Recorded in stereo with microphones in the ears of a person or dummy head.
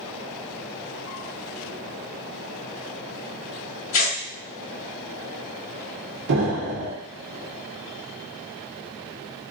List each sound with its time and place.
3.9 s tearing paper: 75° left (ahead or behind), 2 m
6.3 s an explosion: 60° right (ahead or behind), 1.0 m